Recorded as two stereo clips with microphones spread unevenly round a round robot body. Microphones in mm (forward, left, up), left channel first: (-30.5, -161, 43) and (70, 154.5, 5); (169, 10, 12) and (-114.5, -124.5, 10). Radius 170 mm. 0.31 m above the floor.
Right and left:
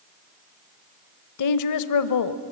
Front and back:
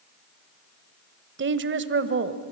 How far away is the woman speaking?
About 1.4 m.